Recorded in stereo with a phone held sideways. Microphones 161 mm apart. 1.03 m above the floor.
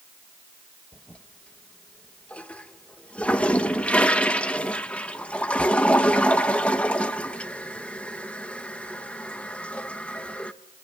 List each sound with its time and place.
0.9 s a toilet flushing: 10° left (ahead or behind), 0.8 m